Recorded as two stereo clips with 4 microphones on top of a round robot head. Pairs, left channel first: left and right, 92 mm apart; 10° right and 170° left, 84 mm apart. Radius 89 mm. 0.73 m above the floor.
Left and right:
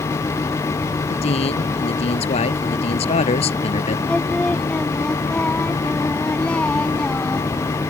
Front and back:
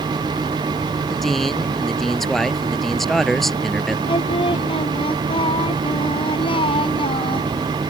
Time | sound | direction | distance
1.1 | a man speaking | 80° left | ?
4.1 | singing | 10° left | ?